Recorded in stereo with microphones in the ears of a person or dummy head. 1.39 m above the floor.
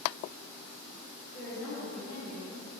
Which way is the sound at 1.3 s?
5° left (ahead or behind).